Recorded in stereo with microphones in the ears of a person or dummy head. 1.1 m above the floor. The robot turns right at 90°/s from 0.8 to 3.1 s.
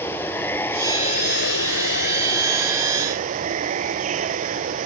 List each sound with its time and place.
0.0 s running water: 15° left; by 4.9 s 140° right